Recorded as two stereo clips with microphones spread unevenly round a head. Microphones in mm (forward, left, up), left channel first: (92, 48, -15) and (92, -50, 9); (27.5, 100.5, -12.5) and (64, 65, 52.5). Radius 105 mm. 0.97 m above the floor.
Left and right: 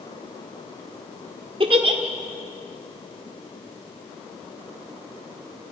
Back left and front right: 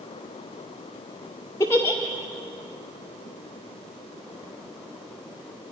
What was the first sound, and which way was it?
A giggle, 135° right.